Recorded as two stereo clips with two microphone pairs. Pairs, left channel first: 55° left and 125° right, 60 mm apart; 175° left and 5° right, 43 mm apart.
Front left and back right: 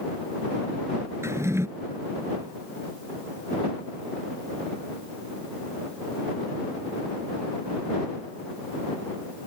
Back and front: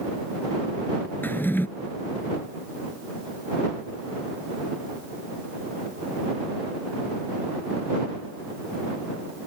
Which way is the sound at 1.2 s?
155° right.